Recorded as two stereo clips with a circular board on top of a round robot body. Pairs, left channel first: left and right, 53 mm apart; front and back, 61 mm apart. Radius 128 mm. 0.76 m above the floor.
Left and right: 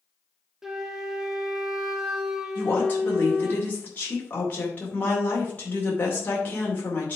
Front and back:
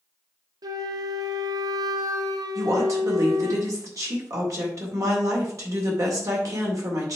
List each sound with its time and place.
0.6 s a flute: 170° right, 0.9 m
2.5 s a woman speaking: 150° left, 2.5 m